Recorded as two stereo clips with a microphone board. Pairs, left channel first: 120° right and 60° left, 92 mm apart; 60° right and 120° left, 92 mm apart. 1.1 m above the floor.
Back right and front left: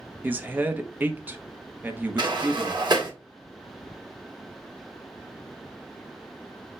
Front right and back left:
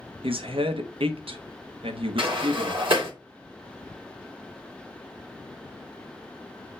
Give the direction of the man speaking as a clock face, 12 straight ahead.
8 o'clock.